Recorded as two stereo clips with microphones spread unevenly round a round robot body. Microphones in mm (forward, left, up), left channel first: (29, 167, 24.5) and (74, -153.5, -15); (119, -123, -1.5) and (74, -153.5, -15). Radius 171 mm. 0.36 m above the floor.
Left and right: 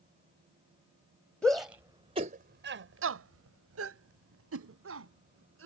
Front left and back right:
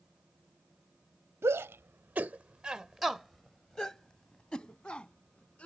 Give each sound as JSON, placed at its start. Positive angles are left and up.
{"t": 1.4, "sound": "a shout", "azimuth_deg": -170}